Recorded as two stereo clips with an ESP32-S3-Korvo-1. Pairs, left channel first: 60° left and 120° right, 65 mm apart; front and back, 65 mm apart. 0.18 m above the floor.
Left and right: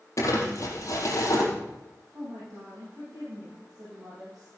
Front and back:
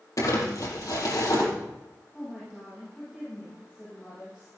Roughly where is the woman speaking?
Right.